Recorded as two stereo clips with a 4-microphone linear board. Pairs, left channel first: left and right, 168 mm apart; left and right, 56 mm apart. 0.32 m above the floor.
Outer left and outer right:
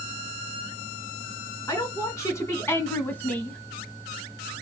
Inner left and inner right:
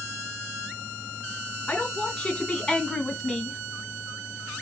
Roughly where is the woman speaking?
Centre.